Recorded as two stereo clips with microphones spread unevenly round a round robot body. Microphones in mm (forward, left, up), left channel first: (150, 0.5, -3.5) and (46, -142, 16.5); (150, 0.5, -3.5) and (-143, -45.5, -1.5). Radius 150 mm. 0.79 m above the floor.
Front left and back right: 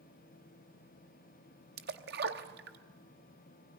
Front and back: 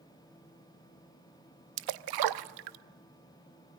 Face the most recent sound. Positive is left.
turn(degrees=-175)